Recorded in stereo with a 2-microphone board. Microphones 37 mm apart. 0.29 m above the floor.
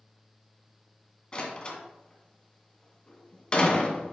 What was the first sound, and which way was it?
A door slam, 25° left (ahead or behind).